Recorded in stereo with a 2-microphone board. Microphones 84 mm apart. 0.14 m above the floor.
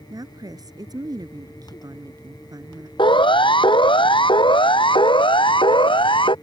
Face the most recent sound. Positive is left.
turn(degrees=80)